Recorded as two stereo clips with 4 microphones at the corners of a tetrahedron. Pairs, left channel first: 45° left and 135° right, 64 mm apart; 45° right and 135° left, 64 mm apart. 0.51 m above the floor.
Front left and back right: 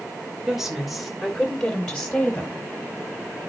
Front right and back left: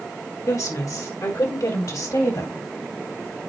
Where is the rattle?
I don't hear a rattle.